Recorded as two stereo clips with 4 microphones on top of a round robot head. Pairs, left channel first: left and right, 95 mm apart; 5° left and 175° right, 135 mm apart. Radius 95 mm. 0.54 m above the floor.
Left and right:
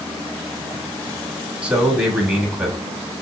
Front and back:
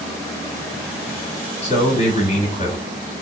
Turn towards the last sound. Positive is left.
turn(degrees=-15)